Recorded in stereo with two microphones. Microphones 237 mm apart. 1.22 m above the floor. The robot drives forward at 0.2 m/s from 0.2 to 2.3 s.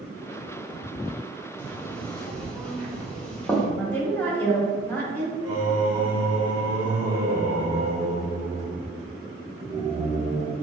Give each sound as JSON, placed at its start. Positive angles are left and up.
{"t": 1.6, "sound": "knocking", "side_deg": 5, "distance_m": 0.7}
{"t": 3.8, "sound": "a woman speaking", "side_deg": 5, "distance_m": 1.3}
{"t": 5.4, "sound": "singing", "side_deg": -10, "distance_m": 1.3}